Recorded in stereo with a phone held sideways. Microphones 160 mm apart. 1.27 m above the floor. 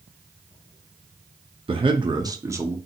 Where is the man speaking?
35° right (ahead or behind), 0.6 m; by 2.8 s 15° right (ahead or behind), 0.7 m.